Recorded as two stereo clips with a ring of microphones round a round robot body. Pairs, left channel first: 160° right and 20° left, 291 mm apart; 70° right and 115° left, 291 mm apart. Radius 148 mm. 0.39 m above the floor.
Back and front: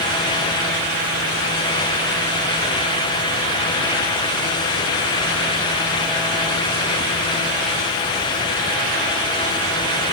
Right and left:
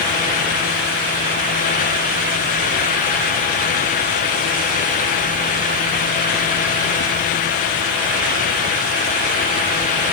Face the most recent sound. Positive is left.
No sound to turn to.